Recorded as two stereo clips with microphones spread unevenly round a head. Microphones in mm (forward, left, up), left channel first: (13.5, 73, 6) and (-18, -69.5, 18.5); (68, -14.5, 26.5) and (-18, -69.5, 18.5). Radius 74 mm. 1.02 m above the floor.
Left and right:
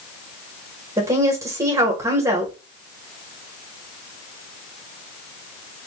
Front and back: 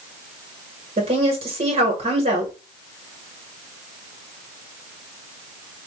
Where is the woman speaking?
175° right, 1.4 m.